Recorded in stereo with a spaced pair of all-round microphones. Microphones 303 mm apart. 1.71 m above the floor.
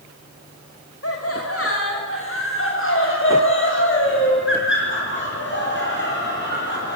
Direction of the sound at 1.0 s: 50° left (ahead or behind).